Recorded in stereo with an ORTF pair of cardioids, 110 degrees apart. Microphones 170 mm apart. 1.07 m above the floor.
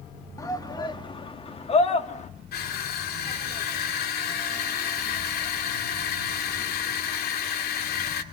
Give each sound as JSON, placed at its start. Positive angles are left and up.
{"t": 0.4, "sound": "a shout", "azimuth_deg": 20, "distance_m": 2.5}
{"t": 2.5, "sound": "crushing", "azimuth_deg": 65, "distance_m": 2.5}